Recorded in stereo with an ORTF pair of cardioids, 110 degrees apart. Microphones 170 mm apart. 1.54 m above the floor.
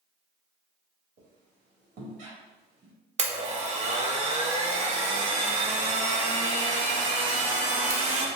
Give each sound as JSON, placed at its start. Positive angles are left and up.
{"t": 1.2, "sound": "a squeak", "azimuth_deg": -50, "distance_m": 1.6}
{"t": 3.2, "sound": "a blender", "azimuth_deg": -40, "distance_m": 0.8}